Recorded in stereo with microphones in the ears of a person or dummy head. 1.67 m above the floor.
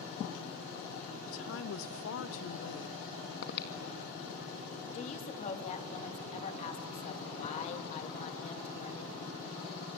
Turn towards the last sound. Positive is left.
turn(degrees=35)  # may be behind; listen again after turning